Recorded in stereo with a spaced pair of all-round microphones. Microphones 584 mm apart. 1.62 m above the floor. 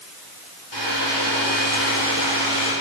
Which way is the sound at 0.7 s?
40° left (ahead or behind).